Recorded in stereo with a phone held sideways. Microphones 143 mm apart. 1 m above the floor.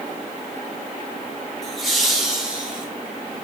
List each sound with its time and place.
1.6 s laughter: centre (ahead or behind), 4 m; by 2.9 s 10° right (ahead or behind), 4.5 m